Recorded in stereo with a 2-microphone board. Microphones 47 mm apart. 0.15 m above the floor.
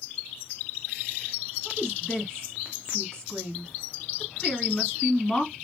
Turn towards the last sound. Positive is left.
turn(degrees=15)  # may be behind; listen again after turning